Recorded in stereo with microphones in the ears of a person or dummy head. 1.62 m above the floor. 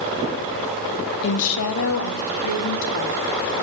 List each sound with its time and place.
1.2 s a woman speaking: 70° left (ahead or behind), 1.6 m; by 3.2 s 80° left, 3.5 m